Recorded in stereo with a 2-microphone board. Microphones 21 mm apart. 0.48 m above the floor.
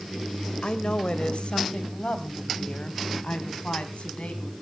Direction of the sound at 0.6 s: 55° left (ahead or behind).